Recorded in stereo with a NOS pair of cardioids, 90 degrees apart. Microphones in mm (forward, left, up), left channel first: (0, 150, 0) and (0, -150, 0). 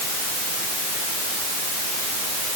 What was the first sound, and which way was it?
Only background noise.